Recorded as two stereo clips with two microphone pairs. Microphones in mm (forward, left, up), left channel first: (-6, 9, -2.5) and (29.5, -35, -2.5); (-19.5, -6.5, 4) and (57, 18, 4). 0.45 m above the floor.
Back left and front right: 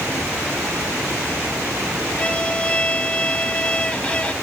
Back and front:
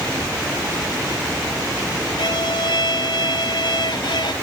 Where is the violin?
160° right.